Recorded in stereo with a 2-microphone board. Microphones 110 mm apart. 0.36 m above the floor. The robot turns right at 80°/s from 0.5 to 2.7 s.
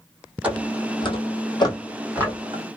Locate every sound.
0.4 s footsteps: 15° right (ahead or behind), 0.8 m; by 2.6 s 55° right (ahead or behind), 1.1 m